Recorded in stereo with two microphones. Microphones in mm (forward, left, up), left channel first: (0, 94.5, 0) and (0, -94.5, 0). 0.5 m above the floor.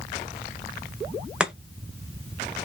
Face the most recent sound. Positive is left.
turn(degrees=-5)  # may be behind; listen again after turning